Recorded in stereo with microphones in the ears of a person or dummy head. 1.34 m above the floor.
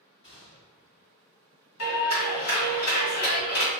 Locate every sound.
0.2 s a gunshot: 25° left (ahead or behind), 1.6 m
1.8 s a clap: 75° left (ahead or behind), 1.8 m